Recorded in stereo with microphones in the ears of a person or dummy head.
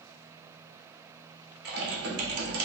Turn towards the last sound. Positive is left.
turn(degrees=-55)  # may be behind; listen again after turning